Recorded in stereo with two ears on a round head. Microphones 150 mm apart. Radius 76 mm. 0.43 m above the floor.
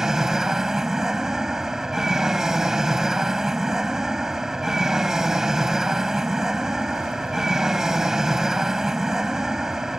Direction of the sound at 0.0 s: 5° right (ahead or behind).